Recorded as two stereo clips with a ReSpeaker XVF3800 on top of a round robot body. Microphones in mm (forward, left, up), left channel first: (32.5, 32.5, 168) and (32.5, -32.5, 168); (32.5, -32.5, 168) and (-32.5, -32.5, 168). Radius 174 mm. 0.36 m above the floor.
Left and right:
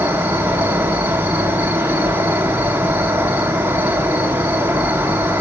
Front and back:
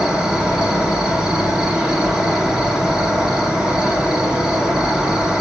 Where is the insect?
110° right, 2 m.